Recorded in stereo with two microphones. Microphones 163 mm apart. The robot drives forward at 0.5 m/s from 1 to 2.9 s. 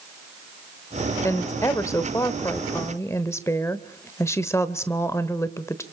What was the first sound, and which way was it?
A woman speaking, 15° left (ahead or behind).